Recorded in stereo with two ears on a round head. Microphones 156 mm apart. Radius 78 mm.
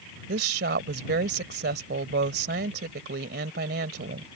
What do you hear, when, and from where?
0.3 s a woman speaking: 65° right (ahead or behind)